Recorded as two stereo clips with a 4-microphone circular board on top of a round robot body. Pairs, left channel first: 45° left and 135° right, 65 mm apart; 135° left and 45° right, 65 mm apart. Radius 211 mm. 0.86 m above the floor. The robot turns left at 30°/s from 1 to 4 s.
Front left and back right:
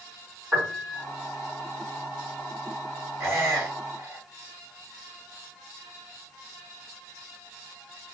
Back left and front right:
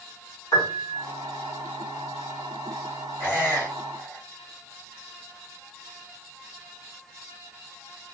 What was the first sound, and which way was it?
A piano, 160° left.